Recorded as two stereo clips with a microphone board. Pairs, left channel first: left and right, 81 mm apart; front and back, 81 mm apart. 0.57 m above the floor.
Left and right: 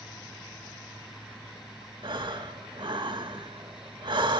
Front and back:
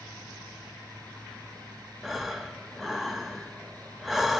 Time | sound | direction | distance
2.0 | breathing | 95° right | 1.0 m